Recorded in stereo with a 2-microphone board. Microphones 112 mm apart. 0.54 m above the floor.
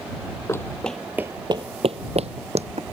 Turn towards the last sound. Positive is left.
turn(degrees=-70)  # may be behind; listen again after turning